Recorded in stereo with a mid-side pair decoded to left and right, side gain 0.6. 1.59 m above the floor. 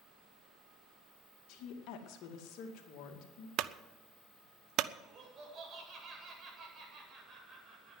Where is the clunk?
60° right, 0.7 m.